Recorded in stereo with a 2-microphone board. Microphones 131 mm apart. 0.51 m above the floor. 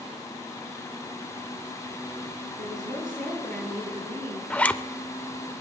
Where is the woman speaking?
80° right, 8.5 m.